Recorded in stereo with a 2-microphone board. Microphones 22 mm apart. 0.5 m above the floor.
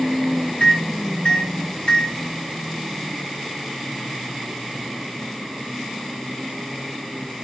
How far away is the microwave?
About 1.1 m.